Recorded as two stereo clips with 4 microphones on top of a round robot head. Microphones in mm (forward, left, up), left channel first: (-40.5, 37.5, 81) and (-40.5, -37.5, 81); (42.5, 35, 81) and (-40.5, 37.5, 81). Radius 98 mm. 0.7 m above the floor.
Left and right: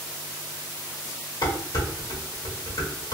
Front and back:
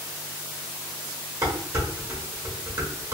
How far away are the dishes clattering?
About 1.4 m.